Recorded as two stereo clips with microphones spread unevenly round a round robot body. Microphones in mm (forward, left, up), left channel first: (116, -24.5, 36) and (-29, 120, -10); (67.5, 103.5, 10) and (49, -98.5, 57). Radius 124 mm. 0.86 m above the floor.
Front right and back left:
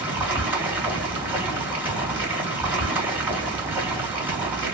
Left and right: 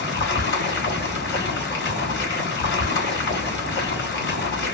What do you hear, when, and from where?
0.0 s running water: 55° left, 2 m